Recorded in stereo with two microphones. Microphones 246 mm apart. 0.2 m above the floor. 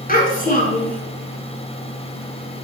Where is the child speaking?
35° left (ahead or behind), 1.8 m.